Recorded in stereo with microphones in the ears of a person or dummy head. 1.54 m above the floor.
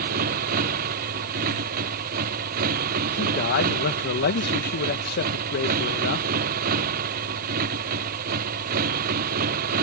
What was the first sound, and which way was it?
A motorcycle, 50° right (ahead or behind).